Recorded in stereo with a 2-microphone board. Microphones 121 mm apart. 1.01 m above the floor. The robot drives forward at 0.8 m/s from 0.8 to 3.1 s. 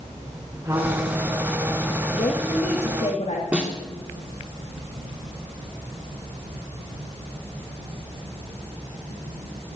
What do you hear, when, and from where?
0.6 s a trumpet: 20° right (ahead or behind), 5 m; by 3.1 s 35° right (ahead or behind), 3.5 m
2.1 s a woman speaking: 70° left (ahead or behind), 1.9 m; by 3.4 s 60° left (ahead or behind), 2 m
3.5 s a snare drum: 10° right (ahead or behind), 2.5 m